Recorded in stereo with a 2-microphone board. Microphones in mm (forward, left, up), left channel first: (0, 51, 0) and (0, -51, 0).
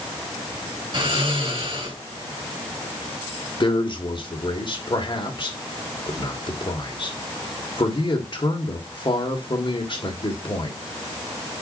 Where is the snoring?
50° right (ahead or behind), 4 m.